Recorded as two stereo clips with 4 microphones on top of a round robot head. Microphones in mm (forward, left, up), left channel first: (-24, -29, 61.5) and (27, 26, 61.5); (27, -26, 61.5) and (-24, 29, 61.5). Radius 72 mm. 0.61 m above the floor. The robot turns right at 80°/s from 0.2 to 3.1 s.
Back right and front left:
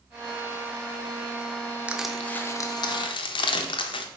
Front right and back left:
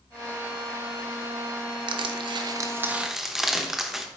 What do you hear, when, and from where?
1.9 s crushing: 120° left, 0.6 m; by 4.1 s 140° right, 0.6 m